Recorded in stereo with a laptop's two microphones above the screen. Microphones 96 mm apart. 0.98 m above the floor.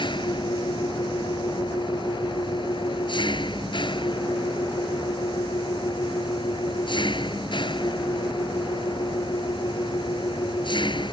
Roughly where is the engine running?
Left.